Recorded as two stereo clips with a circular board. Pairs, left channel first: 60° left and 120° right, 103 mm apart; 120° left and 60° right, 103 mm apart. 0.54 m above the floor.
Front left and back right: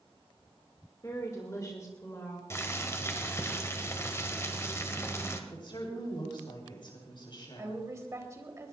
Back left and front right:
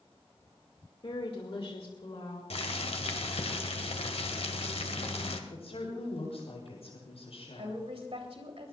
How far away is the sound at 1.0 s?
About 1.9 m.